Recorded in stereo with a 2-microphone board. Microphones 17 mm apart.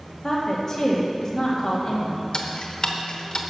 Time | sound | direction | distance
0.2 | a woman speaking | 25° left (ahead or behind) | 2 m
2.3 | ticking | 55° left (ahead or behind) | 0.9 m